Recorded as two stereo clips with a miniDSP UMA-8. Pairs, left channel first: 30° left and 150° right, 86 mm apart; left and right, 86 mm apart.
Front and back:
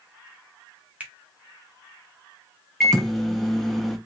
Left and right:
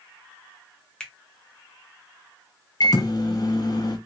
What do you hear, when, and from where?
1.0 s a finger snap: 160° left, 0.7 m
2.8 s a microwave: 120° left, 0.5 m